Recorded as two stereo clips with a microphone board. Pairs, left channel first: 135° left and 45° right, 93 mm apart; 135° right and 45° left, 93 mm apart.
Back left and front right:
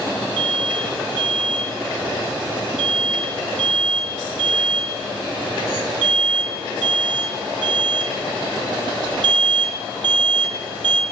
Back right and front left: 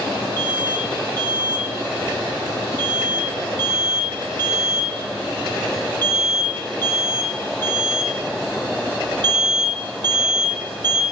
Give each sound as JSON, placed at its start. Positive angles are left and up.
{"t": 0.4, "sound": "an alarm", "azimuth_deg": -70, "distance_m": 2.5}